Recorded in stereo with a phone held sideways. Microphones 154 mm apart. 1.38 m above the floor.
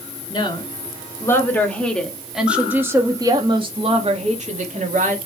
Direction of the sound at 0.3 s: 30° left (ahead or behind).